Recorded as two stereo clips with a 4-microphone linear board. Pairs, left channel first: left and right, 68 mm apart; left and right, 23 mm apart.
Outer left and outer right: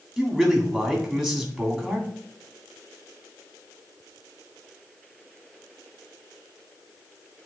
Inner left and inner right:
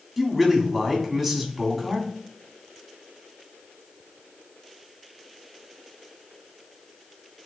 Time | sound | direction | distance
0.2 | a man speaking | centre (ahead or behind) | 2 m